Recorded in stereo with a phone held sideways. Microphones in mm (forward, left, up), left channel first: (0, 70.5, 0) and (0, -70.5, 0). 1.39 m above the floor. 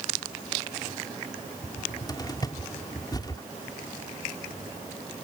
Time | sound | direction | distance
1.6 | a cupboard door | 30° left (ahead or behind) | ?